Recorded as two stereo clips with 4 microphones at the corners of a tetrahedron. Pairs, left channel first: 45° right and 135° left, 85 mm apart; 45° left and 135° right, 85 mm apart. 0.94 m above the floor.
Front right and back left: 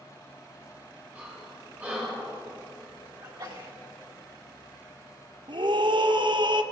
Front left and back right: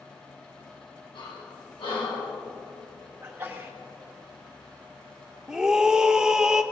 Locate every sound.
1.1 s breathing: 60° left, 3.5 m
3.2 s a sneeze: 160° left, 2 m
5.5 s a scream: 145° left, 0.7 m